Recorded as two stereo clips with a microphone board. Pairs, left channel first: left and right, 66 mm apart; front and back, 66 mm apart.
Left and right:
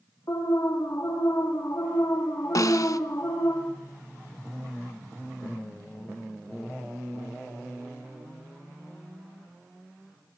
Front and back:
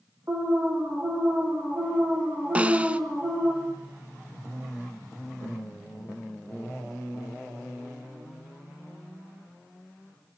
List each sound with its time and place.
0.3 s an alarm: 125° left, 5 m
2.5 s a snare drum: 110° left, 0.7 m